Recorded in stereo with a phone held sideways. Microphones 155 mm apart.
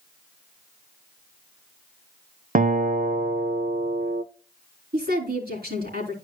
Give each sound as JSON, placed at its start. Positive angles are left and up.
{"t": 2.5, "sound": "a guitar", "side_deg": -60, "distance_m": 0.8}
{"t": 4.9, "sound": "a woman speaking", "side_deg": -85, "distance_m": 3.5}